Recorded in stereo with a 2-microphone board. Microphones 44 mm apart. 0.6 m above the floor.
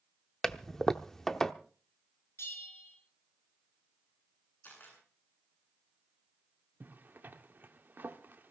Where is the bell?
75° left (ahead or behind), 5.5 m.